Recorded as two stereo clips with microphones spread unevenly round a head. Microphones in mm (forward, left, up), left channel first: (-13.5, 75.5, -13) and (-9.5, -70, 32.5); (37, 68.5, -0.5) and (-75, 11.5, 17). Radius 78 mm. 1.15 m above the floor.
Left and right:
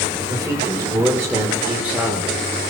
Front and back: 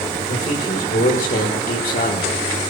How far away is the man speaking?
About 4 m.